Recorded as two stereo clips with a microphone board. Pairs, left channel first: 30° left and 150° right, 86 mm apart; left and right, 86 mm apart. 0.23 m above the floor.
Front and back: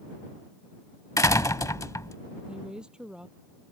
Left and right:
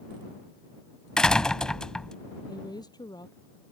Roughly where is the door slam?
Ahead.